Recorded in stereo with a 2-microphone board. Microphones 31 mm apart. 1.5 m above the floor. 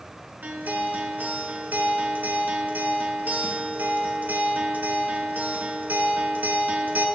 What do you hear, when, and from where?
0.4 s a guitar: 80° right, 1.1 m